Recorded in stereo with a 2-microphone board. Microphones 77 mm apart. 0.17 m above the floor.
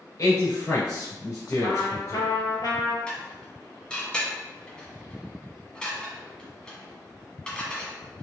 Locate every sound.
0.2 s a man speaking: 50° left (ahead or behind), 1.7 m; by 2.3 s 40° left (ahead or behind), 1.7 m
1.6 s a trumpet: 65° left (ahead or behind), 0.9 m
3.1 s dishes clattering: 15° left (ahead or behind), 0.8 m